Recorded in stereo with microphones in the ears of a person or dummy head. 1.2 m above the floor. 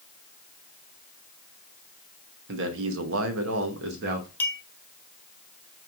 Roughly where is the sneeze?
I don't hear a sneeze.